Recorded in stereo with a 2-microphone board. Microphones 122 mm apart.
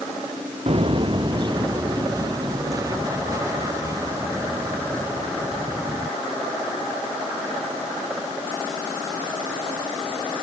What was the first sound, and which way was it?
Footsteps, 55° right (ahead or behind).